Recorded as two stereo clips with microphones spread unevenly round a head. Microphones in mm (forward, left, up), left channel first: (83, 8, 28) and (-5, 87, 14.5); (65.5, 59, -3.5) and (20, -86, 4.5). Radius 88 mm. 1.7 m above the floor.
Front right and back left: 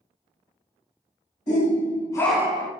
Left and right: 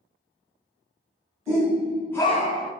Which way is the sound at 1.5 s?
40° right.